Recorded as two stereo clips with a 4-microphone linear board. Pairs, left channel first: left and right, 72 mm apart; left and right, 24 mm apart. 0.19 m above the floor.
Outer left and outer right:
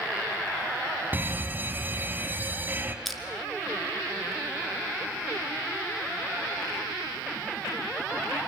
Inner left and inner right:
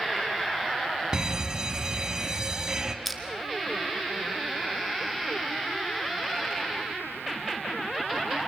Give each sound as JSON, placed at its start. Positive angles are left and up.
{"t": 1.1, "sound": "an alarm", "side_deg": -30, "distance_m": 1.8}
{"t": 3.0, "sound": "crushing", "side_deg": 0, "distance_m": 2.5}